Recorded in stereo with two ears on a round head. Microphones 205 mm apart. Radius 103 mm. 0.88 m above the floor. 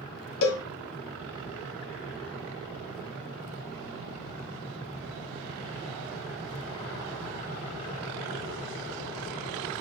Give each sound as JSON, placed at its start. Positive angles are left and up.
{"t": 0.4, "sound": "a cowbell", "side_deg": 65, "distance_m": 1.3}